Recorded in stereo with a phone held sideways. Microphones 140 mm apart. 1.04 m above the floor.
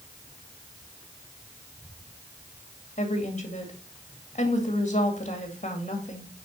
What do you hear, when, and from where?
3.0 s a woman speaking: 55° left (ahead or behind), 2.5 m